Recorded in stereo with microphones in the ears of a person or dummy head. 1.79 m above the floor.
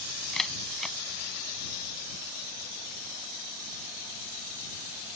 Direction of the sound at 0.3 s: Centre (ahead or behind).